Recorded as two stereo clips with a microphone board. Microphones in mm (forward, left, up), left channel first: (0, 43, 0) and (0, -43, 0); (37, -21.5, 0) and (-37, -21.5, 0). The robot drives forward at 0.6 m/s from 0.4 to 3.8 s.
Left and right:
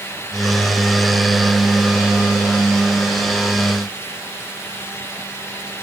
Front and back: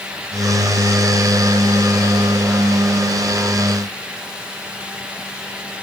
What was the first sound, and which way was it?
Only background noise.